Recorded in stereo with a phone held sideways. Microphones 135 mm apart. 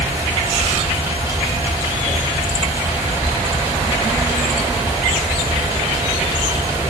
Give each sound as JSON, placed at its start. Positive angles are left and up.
{"t": 0.0, "sound": "a fan", "side_deg": -20, "distance_m": 5.0}